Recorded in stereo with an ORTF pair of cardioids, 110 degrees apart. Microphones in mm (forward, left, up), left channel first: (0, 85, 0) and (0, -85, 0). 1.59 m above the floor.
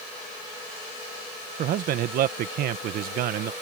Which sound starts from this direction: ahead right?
A man speaking, at 1.6 s.